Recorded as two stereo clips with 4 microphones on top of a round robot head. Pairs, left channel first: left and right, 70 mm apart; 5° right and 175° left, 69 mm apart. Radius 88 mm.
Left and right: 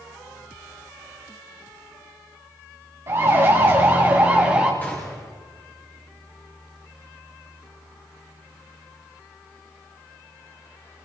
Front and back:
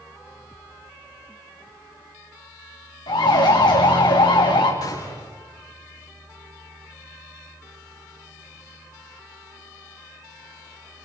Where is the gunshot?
20° left, 8 m.